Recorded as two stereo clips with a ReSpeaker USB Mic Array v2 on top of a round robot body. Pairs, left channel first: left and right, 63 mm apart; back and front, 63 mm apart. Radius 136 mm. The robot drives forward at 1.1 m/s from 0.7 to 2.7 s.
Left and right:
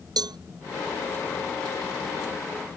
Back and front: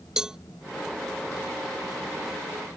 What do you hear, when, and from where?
0.2 s a cowbell: 80° right